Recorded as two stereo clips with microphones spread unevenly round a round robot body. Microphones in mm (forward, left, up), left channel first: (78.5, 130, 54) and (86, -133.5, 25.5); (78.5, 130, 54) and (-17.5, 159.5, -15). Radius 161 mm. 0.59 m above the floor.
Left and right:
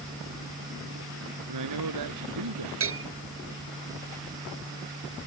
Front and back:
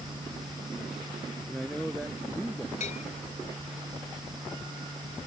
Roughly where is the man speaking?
Right.